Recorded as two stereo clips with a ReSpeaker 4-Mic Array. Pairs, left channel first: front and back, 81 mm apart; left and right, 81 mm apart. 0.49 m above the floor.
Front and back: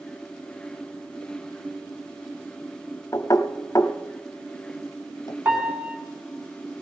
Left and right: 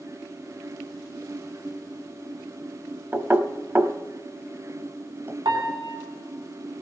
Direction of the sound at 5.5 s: 105° right.